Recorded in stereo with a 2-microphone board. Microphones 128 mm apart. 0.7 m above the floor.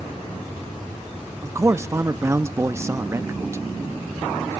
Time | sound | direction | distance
1.4 | a man speaking | 20° right (ahead or behind) | 0.5 m